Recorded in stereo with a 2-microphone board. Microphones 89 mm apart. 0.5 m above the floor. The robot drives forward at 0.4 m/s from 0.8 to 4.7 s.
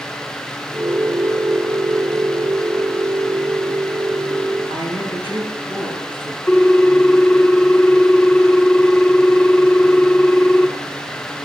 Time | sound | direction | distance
4.7 | a woman speaking | 75° right (ahead or behind) | 5 m
6.5 | a ringtone | 20° left (ahead or behind) | 0.5 m